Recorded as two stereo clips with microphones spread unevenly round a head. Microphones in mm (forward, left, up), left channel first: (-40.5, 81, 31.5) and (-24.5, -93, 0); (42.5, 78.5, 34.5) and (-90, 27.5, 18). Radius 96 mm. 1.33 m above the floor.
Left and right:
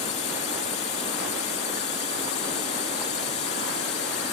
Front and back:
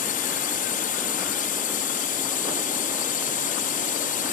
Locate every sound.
0.0 s a drone: 35° left